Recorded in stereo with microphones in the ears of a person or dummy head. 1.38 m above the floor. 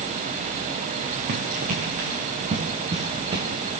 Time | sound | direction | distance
1.3 | running footsteps | 50° right (ahead or behind) | 3.5 m